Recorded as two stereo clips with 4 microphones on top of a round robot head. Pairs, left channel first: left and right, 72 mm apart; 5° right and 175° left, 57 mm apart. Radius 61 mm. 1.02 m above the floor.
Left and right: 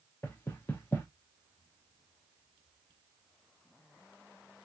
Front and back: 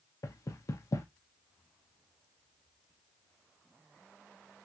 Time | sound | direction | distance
0.2 | knocking | 25° left | 0.7 m